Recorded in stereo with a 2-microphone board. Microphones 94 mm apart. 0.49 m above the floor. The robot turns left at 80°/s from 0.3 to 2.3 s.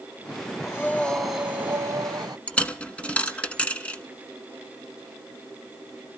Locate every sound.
0.6 s breathing: 45° left, 1.1 m; by 2.4 s 90° right, 1.1 m
2.5 s a dropped coin: 10° left (ahead or behind), 1.1 m